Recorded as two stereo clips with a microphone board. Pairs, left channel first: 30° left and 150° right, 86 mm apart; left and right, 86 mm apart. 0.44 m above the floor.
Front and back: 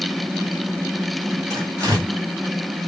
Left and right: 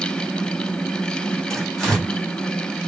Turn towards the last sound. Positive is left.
turn(degrees=175)